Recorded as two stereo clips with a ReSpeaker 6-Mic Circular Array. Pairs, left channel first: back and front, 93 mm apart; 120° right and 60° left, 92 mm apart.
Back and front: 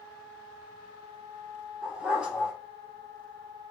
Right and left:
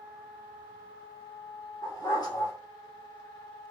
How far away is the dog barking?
About 1.8 m.